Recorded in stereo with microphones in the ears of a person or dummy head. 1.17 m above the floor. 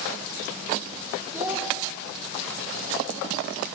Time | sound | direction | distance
1.3 | a child speaking | 10° right (ahead or behind) | 0.7 m